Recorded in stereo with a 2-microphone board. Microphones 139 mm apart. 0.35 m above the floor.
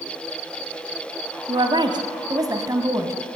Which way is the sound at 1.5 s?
40° right (ahead or behind).